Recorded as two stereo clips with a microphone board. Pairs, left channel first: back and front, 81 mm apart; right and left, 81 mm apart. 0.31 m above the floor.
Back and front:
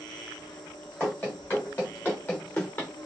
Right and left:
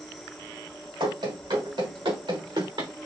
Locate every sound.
0.0 s an insect: 175° right, 1.3 m
1.0 s running footsteps: 110° left, 3.5 m; by 2.9 s 115° left, 2.5 m